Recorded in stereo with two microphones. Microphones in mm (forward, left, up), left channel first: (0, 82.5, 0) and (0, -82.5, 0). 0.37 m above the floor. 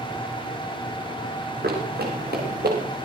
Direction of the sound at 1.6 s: 85° right.